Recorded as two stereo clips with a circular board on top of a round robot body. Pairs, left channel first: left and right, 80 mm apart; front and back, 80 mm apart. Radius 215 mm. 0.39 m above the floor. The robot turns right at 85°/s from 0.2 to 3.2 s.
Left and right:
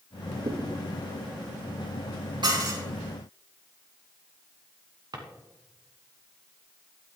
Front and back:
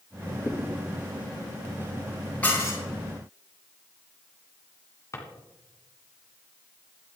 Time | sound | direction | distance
0.5 | a thud | 65° right | 7 m
2.4 | dishes clattering | 75° right | 8 m
5.1 | a drawer | 55° right | 2.5 m